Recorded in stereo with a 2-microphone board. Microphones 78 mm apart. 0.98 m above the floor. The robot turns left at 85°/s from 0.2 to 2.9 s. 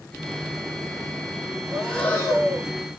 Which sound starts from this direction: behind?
Breathing, at 1.7 s.